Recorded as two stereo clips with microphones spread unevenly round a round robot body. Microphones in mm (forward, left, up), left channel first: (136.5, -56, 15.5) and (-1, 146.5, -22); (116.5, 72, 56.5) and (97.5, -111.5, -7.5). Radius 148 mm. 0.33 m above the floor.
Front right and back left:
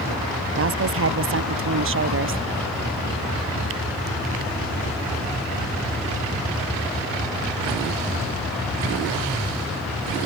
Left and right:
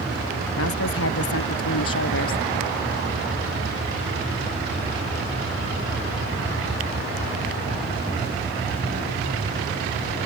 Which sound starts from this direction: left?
A woman speaking, at 0.6 s.